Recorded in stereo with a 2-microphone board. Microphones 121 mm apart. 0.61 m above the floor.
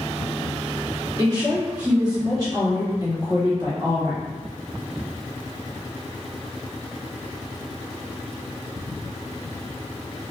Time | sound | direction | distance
1.2 | a woman speaking | 35° right (ahead or behind) | 1.6 m